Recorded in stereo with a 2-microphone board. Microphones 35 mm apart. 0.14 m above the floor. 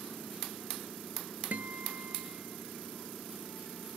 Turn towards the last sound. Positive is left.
turn(degrees=-60)  # may be behind; listen again after turning